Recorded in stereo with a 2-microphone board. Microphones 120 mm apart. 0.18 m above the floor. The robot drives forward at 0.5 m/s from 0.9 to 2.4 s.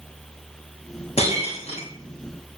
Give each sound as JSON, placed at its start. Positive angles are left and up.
{"t": 1.2, "sound": "breaking glass", "side_deg": 60, "distance_m": 6.0}